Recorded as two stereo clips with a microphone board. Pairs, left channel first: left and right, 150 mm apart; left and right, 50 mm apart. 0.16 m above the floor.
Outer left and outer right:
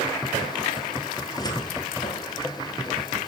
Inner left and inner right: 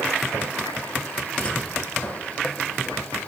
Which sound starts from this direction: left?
A cupboard door, at 1.2 s.